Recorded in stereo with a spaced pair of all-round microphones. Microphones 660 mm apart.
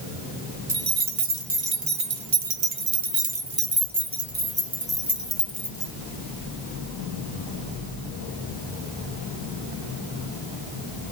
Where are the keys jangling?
70° right (ahead or behind), 1.6 m; by 5.9 s 5° left (ahead or behind), 1.9 m.